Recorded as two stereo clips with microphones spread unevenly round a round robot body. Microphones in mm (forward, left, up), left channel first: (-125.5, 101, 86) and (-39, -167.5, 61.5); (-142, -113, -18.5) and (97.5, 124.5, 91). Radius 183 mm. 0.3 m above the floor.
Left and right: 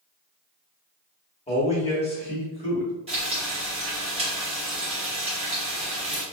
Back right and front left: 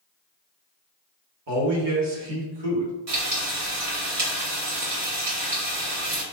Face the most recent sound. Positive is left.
turn(degrees=-5)